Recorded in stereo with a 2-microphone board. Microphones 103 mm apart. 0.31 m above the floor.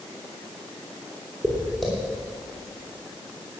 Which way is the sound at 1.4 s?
5° left (ahead or behind).